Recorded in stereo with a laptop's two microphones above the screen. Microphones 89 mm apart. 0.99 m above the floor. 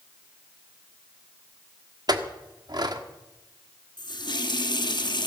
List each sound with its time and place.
2.1 s a clink: 50° right (ahead or behind), 1.3 m
4.0 s a running tap: 55° left (ahead or behind), 1.0 m